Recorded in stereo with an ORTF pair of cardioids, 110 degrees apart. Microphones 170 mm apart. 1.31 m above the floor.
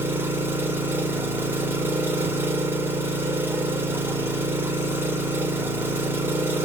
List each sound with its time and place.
0.0 s an engine running: 15° right, 0.7 m